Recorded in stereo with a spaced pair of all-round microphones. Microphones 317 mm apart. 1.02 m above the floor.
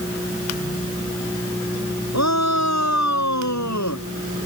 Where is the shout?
55° left (ahead or behind); by 4.0 s 60° left (ahead or behind).